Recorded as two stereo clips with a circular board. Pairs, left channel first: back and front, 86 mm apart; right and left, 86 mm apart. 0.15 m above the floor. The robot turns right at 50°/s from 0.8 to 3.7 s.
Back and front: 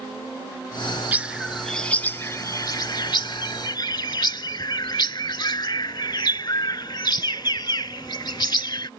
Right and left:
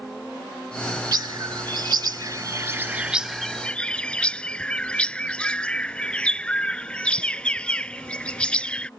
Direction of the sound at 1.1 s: 65° left.